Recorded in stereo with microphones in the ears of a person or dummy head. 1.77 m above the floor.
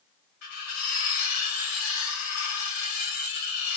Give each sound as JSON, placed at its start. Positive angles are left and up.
{"t": 0.4, "sound": "cutlery clinking", "side_deg": 50, "distance_m": 1.3}